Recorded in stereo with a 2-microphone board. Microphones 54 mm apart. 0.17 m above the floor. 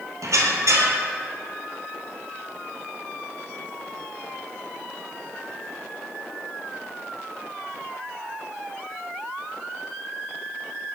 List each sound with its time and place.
0.2 s a squeak: 80° right, 1.2 m